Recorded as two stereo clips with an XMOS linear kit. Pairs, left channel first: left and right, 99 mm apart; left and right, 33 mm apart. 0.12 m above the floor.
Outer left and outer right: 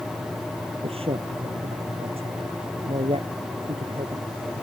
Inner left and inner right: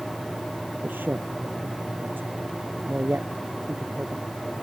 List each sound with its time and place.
0.8 s a man speaking: 75° right (ahead or behind)